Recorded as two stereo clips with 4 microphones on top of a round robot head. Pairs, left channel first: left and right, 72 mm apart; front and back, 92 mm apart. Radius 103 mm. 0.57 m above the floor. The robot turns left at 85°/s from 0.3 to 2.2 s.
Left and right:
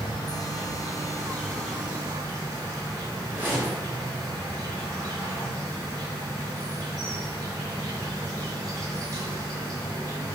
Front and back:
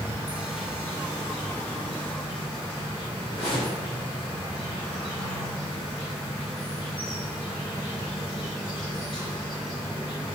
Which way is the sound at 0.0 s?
115° left.